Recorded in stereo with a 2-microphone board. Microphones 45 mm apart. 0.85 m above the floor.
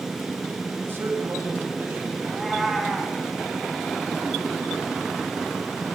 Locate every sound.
0.8 s a man speaking: 60° right (ahead or behind), 5 m
2.2 s a cat meowing: centre (ahead or behind), 3.5 m